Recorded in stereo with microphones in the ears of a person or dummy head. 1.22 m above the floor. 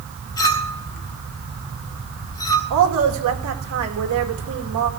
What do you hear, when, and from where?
0.4 s a clink: 20° left (ahead or behind), 1.7 m
2.7 s a woman speaking: 75° right (ahead or behind), 2.5 m